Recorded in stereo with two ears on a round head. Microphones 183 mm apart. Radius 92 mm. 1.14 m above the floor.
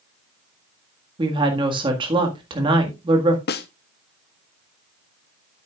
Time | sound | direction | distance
1.2 | a woman speaking | 25° right (ahead or behind) | 1.7 m
3.5 | a snare drum | 50° left (ahead or behind) | 0.7 m